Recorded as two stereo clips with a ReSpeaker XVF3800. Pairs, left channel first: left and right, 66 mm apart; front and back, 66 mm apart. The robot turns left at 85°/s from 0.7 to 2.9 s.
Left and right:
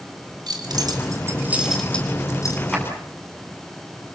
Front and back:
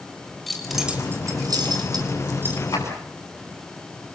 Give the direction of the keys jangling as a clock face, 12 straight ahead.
3 o'clock.